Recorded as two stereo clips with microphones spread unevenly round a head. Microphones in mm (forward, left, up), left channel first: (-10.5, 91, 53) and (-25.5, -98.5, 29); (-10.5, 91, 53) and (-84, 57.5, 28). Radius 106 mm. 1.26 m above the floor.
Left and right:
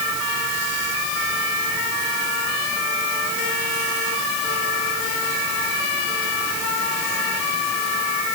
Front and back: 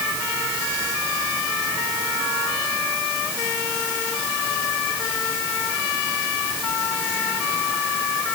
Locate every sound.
Only background noise.